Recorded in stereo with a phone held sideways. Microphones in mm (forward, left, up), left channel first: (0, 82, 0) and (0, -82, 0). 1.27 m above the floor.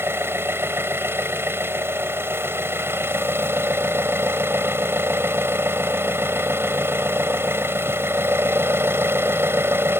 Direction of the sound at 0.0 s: 15° right (ahead or behind).